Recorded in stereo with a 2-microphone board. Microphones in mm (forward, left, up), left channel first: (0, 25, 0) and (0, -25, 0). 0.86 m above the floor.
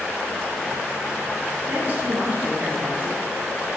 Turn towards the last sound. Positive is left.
turn(degrees=-25)  # may be behind; listen again after turning